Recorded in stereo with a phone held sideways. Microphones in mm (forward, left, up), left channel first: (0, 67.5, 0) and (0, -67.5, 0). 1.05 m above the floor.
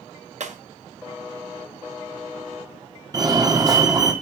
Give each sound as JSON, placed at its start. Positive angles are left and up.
{"t": 0.4, "sound": "breaking glass", "side_deg": -60, "distance_m": 1.3}
{"t": 3.1, "sound": "a fire alarm", "side_deg": -30, "distance_m": 1.7}